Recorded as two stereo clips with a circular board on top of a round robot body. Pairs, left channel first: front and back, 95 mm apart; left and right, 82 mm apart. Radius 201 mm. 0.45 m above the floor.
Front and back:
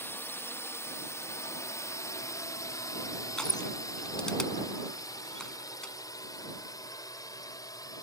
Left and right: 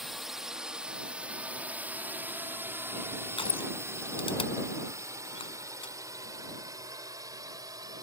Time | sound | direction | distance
0.0 | a drone | 5° right | ?
3.4 | crushing | 85° left | ?